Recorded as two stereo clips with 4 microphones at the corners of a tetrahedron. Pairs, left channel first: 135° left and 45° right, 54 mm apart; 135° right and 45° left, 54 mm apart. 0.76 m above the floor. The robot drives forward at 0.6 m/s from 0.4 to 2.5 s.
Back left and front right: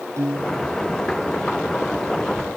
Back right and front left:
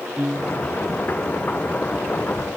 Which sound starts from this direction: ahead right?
A piano, at 0.2 s.